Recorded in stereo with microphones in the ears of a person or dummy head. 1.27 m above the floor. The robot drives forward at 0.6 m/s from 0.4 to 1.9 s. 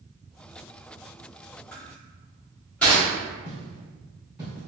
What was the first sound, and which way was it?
Crushing, 5° left (ahead or behind).